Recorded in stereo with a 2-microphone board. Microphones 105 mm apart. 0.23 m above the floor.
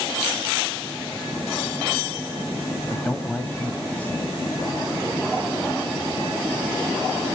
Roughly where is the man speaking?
Centre.